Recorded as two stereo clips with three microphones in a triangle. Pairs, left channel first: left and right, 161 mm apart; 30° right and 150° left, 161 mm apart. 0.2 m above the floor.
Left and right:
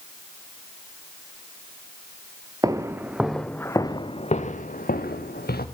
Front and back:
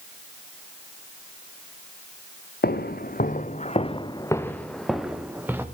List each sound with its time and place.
2.6 s footsteps: 20° right, 1.9 m; by 5.7 s 75° left, 2.5 m